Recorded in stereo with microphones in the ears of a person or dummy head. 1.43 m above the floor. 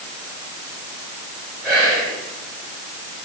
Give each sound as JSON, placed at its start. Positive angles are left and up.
{"t": 1.6, "sound": "whispering", "side_deg": 0, "distance_m": 1.1}